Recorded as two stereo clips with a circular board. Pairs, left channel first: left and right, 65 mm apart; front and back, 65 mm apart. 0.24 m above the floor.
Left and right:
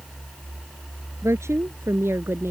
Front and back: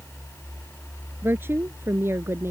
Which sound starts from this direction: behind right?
A woman speaking, at 1.2 s.